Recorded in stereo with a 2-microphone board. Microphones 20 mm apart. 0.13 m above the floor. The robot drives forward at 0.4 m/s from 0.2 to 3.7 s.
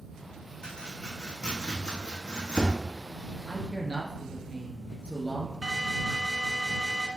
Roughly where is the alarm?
Centre.